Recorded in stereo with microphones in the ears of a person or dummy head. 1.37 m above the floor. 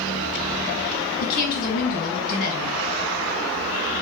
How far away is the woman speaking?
About 2 m.